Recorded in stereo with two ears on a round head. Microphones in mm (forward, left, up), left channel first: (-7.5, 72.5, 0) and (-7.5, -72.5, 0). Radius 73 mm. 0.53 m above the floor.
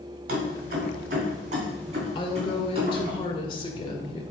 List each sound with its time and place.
0.3 s keys jangling: 70° right (ahead or behind), 2.5 m; by 3.1 s 35° right (ahead or behind), 4 m
2.1 s a woman speaking: 35° left (ahead or behind), 1.6 m